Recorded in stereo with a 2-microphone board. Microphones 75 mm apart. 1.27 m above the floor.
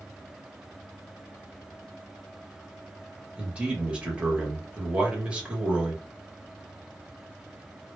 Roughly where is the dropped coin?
I don't hear a dropped coin.